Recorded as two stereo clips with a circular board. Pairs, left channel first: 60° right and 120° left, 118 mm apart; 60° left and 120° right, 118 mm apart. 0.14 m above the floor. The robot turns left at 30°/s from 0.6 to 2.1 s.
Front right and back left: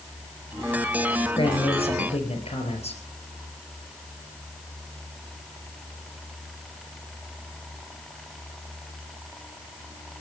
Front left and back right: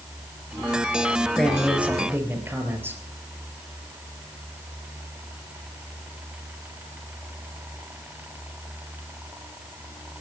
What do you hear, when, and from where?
1.4 s a man speaking: 25° right, 3.5 m; by 3.0 s 50° right, 3.5 m